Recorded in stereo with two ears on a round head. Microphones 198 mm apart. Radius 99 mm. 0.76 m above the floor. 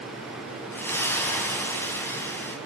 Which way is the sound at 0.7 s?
10° left (ahead or behind).